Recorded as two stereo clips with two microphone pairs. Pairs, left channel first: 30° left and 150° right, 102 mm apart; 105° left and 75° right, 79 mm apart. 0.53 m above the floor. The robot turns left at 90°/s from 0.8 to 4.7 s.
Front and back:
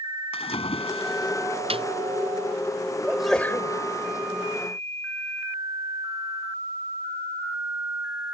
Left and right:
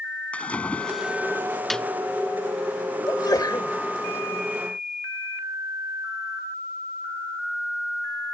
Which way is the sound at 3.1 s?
135° left.